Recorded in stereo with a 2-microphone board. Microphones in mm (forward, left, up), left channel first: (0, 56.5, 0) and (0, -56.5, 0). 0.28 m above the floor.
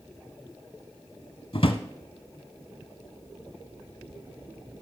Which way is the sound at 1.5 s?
50° left (ahead or behind).